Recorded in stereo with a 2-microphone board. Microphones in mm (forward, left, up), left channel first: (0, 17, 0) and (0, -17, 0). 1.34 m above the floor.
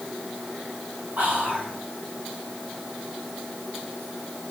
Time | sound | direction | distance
1.2 | whispering | 55° right (ahead or behind) | 1.7 m